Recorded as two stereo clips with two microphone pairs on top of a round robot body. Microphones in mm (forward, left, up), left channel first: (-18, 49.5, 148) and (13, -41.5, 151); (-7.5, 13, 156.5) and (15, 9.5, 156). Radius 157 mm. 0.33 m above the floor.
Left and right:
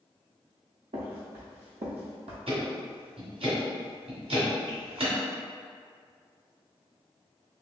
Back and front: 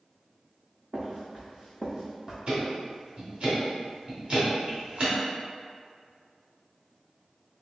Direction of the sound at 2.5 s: 65° right.